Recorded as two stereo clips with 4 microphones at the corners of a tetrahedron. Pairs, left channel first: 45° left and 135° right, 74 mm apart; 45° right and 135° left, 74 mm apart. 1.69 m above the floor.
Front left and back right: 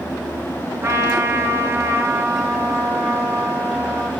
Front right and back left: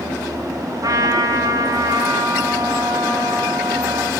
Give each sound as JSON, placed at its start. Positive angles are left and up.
{"t": 0.8, "sound": "a trumpet", "azimuth_deg": 170, "distance_m": 2.5}